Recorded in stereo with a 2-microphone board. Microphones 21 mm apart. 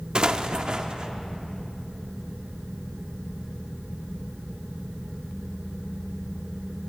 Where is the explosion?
45° right (ahead or behind), 0.7 m.